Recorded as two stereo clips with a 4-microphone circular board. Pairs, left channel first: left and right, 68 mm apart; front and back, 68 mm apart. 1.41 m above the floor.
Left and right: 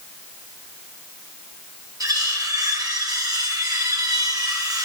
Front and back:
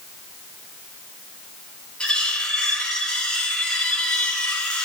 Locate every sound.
2.0 s cutlery clinking: 75° right, 2 m